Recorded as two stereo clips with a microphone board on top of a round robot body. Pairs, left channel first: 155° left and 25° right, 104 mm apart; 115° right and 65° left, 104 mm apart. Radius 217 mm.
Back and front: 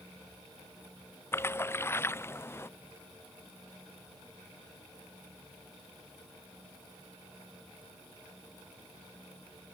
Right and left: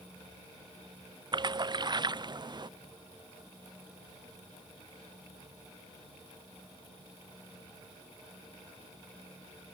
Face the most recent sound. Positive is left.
turn(degrees=95)